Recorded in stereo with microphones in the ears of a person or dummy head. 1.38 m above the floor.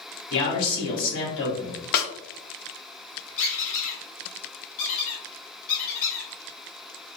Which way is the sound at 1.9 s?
50° left (ahead or behind).